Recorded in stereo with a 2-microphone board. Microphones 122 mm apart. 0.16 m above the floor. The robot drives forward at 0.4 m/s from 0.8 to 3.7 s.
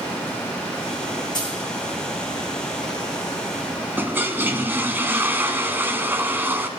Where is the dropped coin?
35° left (ahead or behind), 4.5 m.